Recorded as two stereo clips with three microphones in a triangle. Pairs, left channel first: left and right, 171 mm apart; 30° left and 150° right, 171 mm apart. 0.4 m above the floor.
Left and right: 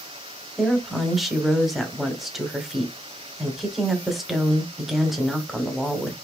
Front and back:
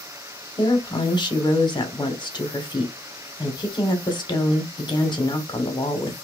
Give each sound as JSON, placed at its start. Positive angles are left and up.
{"t": 0.6, "sound": "a woman speaking", "azimuth_deg": 0, "distance_m": 1.0}